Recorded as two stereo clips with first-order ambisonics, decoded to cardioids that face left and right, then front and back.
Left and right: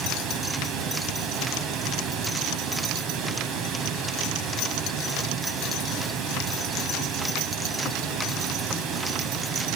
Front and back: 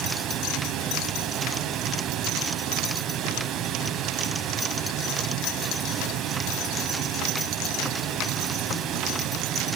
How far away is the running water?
About 2.5 m.